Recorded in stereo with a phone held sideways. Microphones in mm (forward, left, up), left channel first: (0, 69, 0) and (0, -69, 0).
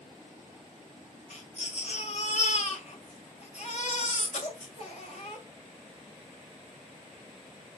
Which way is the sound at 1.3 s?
55° left (ahead or behind).